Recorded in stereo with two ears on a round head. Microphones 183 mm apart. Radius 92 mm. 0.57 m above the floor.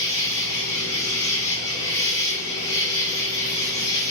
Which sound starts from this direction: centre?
An insect, at 0.0 s.